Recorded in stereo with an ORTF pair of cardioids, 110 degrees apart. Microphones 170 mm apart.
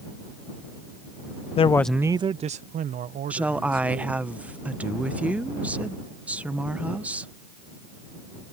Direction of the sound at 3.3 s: 10° right.